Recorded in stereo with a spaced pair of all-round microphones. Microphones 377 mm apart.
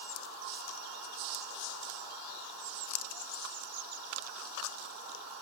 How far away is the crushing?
I don't hear crushing.